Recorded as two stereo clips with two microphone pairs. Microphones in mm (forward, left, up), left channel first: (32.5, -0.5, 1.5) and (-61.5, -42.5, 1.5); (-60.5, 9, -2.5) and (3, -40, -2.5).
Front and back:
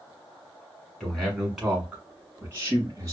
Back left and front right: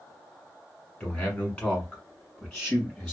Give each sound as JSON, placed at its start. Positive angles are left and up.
{"t": 1.0, "sound": "a man speaking", "azimuth_deg": 105, "distance_m": 1.4}